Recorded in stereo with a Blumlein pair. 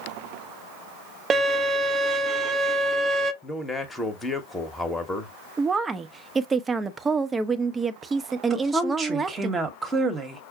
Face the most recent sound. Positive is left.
turn(degrees=-15)